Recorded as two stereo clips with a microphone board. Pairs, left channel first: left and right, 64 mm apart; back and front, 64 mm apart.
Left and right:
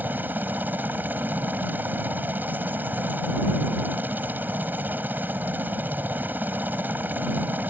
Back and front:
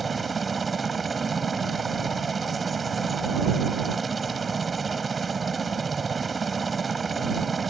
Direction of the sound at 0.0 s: 90° right.